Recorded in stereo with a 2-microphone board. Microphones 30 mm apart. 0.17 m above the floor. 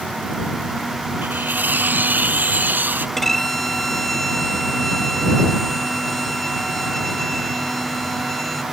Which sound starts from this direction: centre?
A violin, at 3.2 s.